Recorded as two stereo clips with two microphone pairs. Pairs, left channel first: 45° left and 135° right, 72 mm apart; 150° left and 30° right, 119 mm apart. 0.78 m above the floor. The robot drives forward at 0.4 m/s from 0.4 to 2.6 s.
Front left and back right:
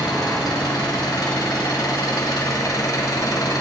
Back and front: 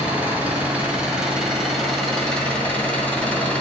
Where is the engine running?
45° left, 2 m; by 3.6 s 70° left, 1.5 m.